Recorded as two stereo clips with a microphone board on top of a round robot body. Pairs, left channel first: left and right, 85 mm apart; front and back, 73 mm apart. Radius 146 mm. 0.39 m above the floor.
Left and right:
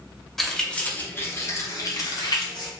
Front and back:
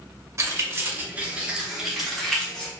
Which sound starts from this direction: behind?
Keys jangling, at 0.4 s.